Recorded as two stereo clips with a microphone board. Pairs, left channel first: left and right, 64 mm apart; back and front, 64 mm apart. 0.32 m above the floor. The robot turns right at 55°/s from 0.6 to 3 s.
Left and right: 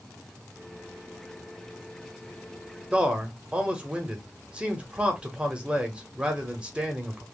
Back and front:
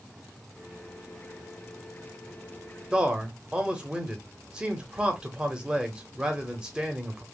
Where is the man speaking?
50° right, 1.1 m; by 7.2 s 45° right, 1.1 m.